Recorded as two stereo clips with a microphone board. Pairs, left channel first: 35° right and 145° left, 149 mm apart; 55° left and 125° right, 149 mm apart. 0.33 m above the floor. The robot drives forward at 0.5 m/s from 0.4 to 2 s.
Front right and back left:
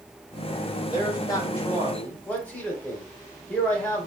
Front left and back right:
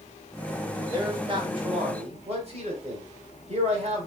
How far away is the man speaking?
About 1.3 m.